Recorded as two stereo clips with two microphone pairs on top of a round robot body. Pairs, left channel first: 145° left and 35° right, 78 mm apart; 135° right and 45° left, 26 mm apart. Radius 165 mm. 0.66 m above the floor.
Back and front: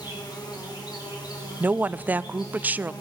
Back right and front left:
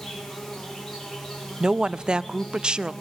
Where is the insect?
145° left, 5 m.